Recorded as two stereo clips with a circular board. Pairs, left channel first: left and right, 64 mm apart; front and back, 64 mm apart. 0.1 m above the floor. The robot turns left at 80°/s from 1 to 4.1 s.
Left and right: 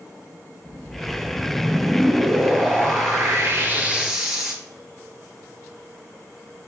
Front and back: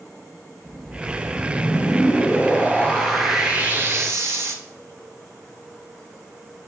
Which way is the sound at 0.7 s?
85° left.